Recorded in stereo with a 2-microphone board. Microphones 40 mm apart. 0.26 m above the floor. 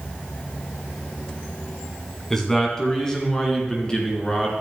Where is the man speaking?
10° left (ahead or behind), 2 m; by 4.5 s 25° left (ahead or behind), 3.5 m.